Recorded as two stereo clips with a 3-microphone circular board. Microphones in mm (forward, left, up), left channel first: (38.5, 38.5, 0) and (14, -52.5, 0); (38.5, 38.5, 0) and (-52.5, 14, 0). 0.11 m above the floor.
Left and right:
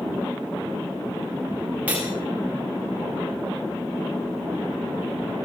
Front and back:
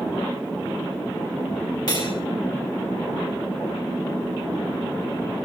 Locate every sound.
1.9 s cutlery clinking: 30° right, 7.5 m